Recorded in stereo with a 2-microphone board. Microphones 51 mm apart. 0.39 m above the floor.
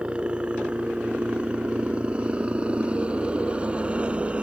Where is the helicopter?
20° right (ahead or behind); by 4.4 s 25° right (ahead or behind).